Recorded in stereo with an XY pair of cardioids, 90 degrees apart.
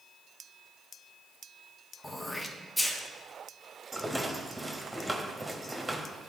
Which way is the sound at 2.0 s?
20° left.